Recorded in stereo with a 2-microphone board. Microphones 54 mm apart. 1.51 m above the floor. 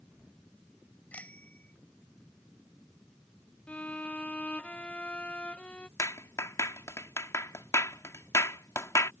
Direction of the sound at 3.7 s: 25° left (ahead or behind).